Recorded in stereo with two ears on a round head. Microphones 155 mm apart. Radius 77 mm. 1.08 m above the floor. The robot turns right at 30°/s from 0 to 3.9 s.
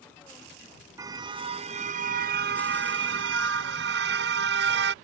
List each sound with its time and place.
1.0 s a car horn: 160° right; by 4.9 s 75° right